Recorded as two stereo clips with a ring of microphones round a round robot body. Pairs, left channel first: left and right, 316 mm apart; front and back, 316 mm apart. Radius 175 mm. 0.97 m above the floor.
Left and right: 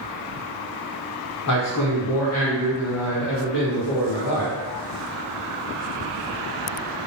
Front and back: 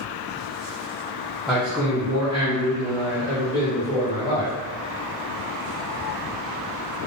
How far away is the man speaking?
About 0.6 m.